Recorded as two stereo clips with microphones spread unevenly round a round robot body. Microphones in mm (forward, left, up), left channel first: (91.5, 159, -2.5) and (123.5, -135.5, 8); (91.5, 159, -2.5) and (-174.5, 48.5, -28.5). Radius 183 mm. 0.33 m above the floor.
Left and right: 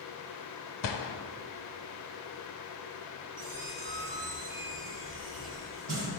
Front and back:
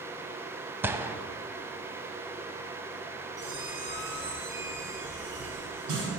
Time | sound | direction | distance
0.8 | a gunshot | 120° left | 0.6 m
3.4 | a squeak | 120° right | 2 m